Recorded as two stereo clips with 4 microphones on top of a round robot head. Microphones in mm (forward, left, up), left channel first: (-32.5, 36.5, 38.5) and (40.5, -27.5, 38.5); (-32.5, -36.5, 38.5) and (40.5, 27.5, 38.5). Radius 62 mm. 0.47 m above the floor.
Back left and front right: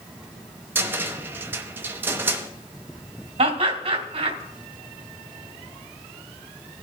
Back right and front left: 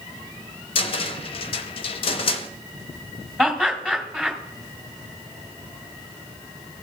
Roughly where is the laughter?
Ahead right.